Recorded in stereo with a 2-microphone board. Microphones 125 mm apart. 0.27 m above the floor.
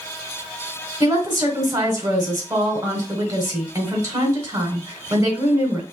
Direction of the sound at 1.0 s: 25° right (ahead or behind).